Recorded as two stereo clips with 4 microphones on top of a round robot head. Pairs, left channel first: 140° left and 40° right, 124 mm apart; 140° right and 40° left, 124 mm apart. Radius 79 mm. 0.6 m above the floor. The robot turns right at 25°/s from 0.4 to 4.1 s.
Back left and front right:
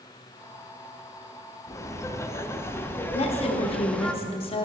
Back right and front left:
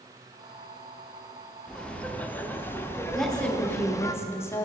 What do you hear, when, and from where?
1.7 s laughter: 145° left, 0.8 m; by 4.1 s 155° right, 0.8 m
3.1 s a woman speaking: 130° left, 0.9 m; by 4.7 s 155° left, 0.9 m